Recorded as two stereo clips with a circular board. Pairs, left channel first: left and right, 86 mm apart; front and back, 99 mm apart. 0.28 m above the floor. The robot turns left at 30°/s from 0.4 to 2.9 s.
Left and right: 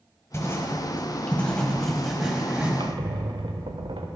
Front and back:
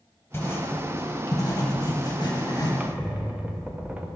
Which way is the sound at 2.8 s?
100° right.